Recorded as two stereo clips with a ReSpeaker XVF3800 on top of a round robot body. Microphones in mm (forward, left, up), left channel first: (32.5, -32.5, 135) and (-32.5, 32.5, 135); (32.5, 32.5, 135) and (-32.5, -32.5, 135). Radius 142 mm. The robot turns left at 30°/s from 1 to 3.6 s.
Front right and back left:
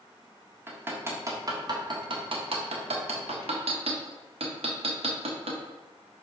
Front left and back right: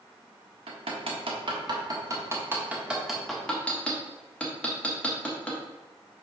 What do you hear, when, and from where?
0.7 s hammering: 160° right, 1.5 m; by 5.6 s 125° left, 1.5 m